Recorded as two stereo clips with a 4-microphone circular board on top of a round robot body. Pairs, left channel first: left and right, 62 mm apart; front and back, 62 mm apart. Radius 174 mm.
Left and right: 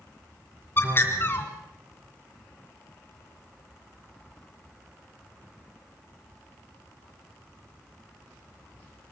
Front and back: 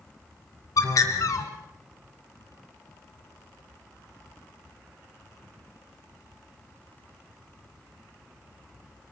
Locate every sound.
0.8 s a bird: 35° left, 2.5 m